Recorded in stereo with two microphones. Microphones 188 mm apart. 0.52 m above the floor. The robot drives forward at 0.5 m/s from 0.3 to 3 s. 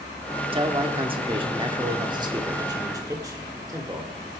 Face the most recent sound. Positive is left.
turn(degrees=-20)  # may be behind; listen again after turning